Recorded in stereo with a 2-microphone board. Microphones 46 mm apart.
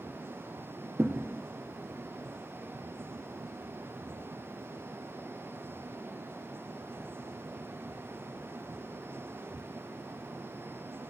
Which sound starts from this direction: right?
A thud, at 1.0 s.